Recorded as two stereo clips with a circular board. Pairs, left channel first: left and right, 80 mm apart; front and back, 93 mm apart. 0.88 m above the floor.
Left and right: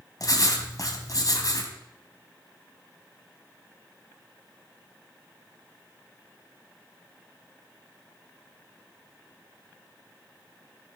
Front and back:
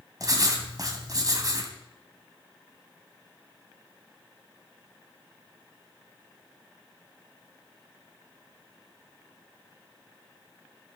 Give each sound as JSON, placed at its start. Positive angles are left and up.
{"t": 0.2, "sound": "writing", "azimuth_deg": 130, "distance_m": 2.5}